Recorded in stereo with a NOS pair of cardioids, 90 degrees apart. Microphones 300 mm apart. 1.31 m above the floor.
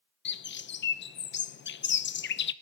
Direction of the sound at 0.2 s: 40° left.